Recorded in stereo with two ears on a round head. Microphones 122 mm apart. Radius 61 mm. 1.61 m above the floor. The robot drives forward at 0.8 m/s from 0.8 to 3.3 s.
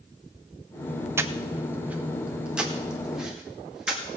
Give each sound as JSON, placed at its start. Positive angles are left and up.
{"t": 1.2, "sound": "breathing", "side_deg": -20, "distance_m": 0.6}